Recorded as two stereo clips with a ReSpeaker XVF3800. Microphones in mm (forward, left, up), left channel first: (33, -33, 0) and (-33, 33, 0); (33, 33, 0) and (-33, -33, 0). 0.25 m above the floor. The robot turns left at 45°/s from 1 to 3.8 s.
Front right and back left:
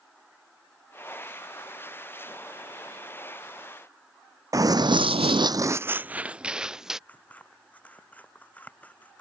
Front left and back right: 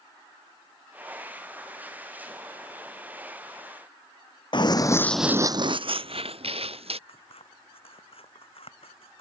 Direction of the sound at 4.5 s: 80° left.